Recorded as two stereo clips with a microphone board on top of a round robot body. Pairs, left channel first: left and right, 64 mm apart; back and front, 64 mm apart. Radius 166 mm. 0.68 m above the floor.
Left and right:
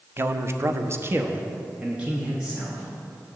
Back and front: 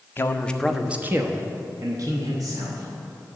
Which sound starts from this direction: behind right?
A man speaking, at 0.2 s.